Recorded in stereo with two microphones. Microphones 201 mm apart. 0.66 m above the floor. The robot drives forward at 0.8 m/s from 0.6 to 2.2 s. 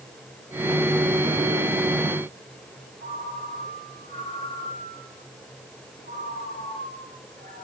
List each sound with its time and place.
3.0 s a ringtone: 45° right (ahead or behind), 8 m